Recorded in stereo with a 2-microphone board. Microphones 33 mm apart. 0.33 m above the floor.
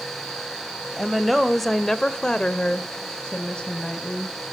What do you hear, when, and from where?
1.0 s a woman speaking: 5° right (ahead or behind), 1.5 m; by 4.4 s 25° left (ahead or behind), 2.5 m